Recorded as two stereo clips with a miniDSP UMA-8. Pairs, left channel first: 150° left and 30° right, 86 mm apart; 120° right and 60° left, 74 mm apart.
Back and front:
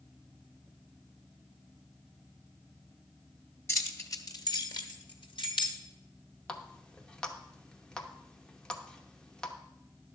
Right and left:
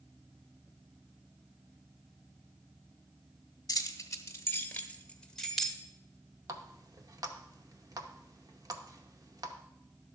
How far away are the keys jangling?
About 1.1 m.